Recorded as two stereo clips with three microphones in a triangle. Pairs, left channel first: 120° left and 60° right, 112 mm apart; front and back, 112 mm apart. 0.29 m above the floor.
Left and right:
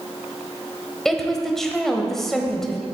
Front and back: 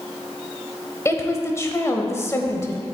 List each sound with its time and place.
1.1 s a woman speaking: 35° left, 1.0 m